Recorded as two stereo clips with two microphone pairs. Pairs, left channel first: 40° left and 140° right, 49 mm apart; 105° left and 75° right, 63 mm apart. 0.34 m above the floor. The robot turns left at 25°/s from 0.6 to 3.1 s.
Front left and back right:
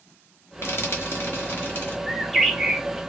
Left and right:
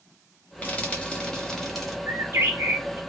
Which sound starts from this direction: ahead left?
Frying, at 0.6 s.